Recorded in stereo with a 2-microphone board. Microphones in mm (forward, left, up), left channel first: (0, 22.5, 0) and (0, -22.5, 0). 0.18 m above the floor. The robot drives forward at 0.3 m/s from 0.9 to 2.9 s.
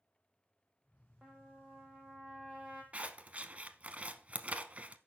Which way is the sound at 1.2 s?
10° right (ahead or behind).